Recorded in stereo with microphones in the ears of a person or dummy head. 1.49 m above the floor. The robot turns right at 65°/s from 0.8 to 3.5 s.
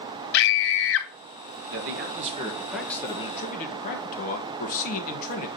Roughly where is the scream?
Left.